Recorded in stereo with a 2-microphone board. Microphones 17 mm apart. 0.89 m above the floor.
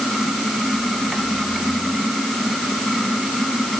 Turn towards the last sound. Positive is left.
No sound to turn to.